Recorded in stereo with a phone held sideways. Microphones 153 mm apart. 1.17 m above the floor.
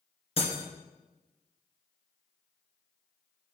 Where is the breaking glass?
40° left (ahead or behind), 2 m.